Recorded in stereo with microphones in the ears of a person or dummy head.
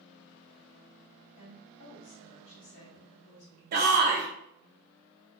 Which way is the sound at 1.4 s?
60° left (ahead or behind).